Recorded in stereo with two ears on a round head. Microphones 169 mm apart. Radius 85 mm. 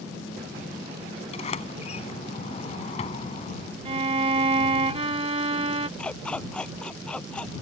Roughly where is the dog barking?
Centre.